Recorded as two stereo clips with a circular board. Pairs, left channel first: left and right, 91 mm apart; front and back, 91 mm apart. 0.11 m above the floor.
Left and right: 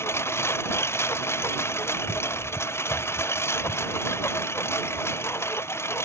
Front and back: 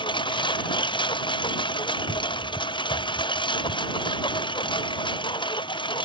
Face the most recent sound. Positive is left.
turn(degrees=30)